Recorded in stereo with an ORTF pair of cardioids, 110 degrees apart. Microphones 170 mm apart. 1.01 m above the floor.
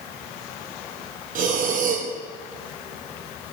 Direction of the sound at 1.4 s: 55° right.